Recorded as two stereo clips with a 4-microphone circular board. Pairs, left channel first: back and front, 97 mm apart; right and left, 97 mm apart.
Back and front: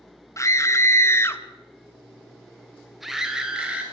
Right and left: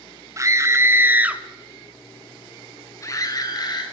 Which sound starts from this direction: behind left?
A scream, at 0.4 s.